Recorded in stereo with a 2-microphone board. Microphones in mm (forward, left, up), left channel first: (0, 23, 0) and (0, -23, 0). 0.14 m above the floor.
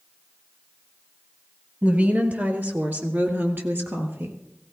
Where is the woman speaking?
30° right (ahead or behind), 2.5 m; by 4.4 s 60° right (ahead or behind), 3 m.